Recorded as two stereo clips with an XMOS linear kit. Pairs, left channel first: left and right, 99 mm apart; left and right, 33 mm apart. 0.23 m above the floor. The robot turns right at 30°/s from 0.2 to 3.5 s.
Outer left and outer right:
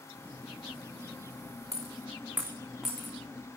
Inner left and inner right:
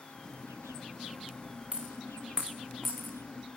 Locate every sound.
1.7 s a dropped coin: 35° right (ahead or behind), 2.0 m; by 3.6 s 15° left (ahead or behind), 2.0 m